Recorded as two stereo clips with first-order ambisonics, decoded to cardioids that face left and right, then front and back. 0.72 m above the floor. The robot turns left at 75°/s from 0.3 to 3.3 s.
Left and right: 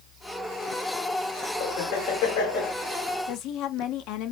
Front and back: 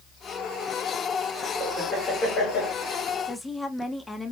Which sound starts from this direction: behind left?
Laughter, at 1.6 s.